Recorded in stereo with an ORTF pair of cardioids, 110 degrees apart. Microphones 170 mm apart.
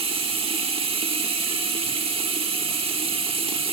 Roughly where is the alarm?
No alarm in this recording.